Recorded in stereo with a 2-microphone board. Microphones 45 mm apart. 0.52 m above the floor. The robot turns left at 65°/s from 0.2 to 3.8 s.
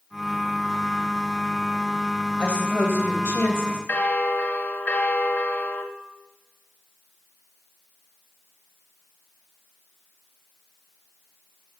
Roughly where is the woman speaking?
Behind left.